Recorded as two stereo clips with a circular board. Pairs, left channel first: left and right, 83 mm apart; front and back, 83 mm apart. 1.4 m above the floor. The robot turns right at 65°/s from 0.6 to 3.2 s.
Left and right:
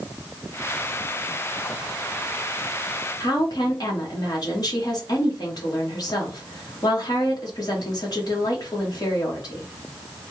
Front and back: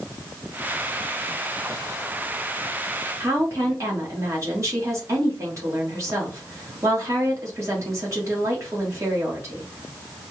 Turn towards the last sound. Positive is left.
turn(degrees=130)